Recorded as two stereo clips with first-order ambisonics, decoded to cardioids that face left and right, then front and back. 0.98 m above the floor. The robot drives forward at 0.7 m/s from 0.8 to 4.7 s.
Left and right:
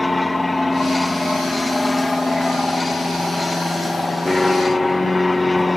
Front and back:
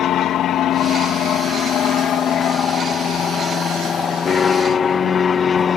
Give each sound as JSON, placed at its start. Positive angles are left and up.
{"t": 0.0, "sound": "an aircraft", "azimuth_deg": 10}